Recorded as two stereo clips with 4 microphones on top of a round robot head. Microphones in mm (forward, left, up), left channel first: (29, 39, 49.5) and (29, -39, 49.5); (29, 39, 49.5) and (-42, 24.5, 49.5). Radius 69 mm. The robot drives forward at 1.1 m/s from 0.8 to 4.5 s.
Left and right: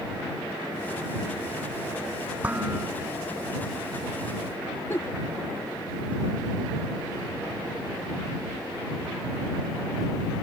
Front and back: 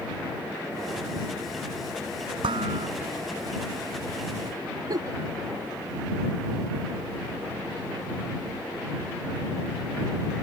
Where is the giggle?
160° left.